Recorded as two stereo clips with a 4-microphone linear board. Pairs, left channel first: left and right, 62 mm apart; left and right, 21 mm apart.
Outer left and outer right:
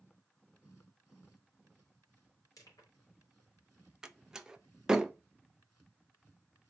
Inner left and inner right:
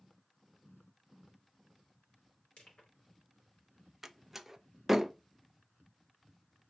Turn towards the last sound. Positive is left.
turn(degrees=-10)  # may be behind; listen again after turning